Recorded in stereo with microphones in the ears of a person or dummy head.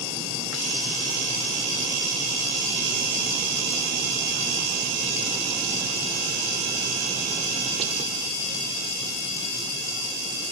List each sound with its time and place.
Only background noise.